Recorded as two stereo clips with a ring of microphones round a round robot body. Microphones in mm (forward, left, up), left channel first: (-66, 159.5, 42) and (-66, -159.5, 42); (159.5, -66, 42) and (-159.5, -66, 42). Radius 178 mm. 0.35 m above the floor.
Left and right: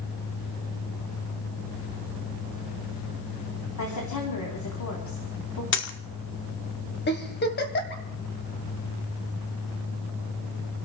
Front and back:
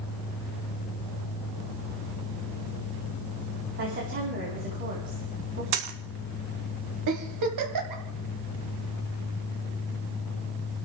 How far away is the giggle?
About 2 m.